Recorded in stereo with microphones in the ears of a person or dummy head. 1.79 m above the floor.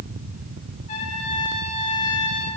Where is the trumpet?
50° left (ahead or behind), 2.5 m.